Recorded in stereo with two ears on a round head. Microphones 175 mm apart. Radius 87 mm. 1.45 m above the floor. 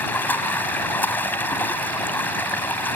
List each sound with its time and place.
0.0 s running water: 10° left (ahead or behind)